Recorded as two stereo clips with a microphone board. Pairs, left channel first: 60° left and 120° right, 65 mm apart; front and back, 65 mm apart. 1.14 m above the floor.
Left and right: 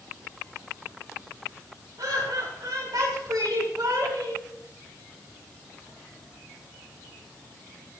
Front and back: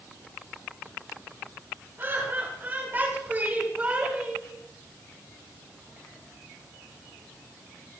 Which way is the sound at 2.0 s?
125° right.